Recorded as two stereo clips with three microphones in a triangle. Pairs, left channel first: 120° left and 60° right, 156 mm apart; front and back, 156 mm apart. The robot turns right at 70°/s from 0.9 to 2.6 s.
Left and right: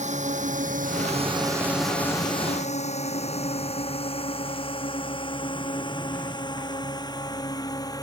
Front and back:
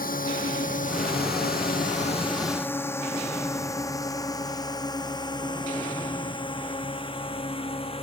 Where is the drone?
20° right; by 8.0 s 55° left.